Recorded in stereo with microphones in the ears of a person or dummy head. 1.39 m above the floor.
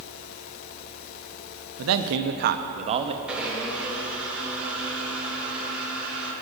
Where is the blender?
10° right (ahead or behind), 2.5 m.